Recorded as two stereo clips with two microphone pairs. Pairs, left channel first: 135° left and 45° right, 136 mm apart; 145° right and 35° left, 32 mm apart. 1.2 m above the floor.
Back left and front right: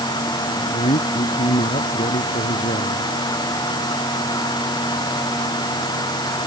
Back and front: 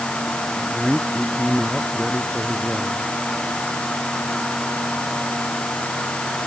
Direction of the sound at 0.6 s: 130° left.